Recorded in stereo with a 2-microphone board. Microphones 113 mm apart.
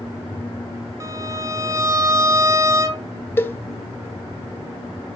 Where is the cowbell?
20° left (ahead or behind), 0.5 m.